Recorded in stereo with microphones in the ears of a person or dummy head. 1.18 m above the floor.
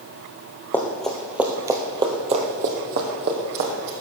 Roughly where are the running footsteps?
Centre.